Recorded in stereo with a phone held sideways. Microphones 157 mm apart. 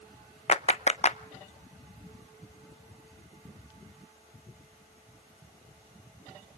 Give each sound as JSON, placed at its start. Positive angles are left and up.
{"t": 0.5, "sound": "a clap", "side_deg": 45, "distance_m": 0.6}